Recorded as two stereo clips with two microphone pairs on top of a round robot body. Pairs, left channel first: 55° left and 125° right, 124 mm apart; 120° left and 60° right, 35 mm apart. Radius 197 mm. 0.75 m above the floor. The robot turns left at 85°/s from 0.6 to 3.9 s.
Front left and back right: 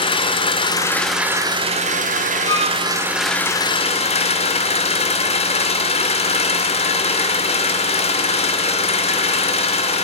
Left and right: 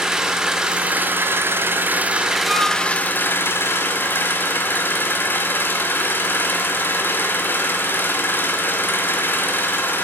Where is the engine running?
10° left, 1.9 m; by 10.0 s 90° left, 1.9 m.